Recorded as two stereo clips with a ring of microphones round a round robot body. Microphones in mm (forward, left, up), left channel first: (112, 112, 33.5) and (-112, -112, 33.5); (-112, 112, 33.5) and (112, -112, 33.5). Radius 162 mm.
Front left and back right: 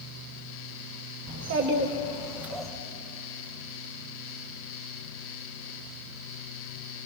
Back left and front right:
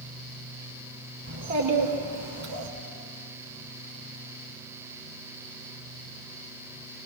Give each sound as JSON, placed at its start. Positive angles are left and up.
{"t": 1.3, "sound": "a child speaking", "azimuth_deg": -95, "distance_m": 2.0}